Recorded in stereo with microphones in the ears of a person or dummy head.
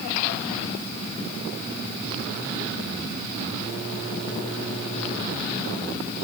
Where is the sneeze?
I don't hear a sneeze.